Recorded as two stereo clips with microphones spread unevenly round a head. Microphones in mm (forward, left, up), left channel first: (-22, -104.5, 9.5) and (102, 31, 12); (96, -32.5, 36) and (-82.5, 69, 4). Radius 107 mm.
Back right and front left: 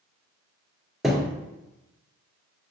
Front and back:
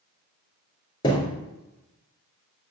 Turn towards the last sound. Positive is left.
turn(degrees=-40)